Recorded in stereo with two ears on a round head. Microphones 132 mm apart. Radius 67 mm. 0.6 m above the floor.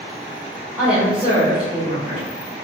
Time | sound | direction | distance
0.8 | a woman speaking | 5° right (ahead or behind) | 1.5 m